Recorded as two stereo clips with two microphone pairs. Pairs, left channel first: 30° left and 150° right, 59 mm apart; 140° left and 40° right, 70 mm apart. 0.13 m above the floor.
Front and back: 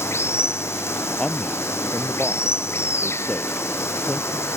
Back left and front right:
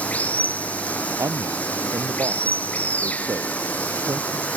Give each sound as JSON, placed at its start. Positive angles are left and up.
{"t": 0.0, "sound": "running water", "azimuth_deg": 70}
{"t": 1.2, "sound": "a man speaking", "azimuth_deg": -45}